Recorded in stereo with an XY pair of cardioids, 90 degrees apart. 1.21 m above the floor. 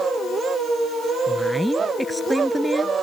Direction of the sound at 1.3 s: Straight ahead.